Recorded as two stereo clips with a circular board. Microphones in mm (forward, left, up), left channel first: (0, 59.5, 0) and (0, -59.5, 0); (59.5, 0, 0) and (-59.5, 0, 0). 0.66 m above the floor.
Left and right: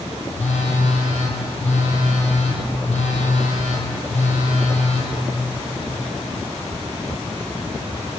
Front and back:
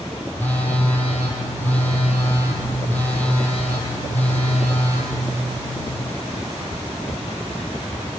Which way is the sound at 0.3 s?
75° left.